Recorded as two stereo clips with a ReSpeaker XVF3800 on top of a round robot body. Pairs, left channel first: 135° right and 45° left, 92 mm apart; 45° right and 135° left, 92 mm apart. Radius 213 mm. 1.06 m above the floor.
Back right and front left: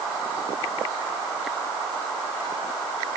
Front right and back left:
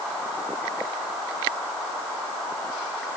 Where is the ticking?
I don't hear ticking.